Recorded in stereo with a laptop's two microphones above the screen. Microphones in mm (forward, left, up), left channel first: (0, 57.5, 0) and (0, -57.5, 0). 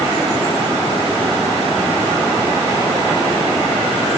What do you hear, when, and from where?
Only background noise.